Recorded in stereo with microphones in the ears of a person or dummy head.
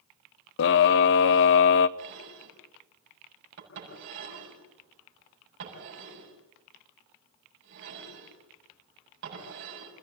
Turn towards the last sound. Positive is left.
turn(degrees=-65)  # may be behind; listen again after turning